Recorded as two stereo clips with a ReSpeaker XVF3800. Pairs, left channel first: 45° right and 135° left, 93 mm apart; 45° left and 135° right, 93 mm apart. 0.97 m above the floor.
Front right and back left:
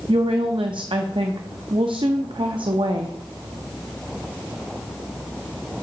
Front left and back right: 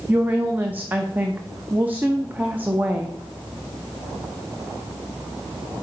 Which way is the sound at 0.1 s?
155° left.